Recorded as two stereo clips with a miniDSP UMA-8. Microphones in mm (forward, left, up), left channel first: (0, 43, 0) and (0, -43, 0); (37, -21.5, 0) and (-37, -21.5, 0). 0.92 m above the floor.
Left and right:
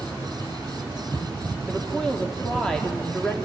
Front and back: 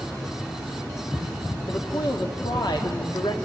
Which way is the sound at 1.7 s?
10° left.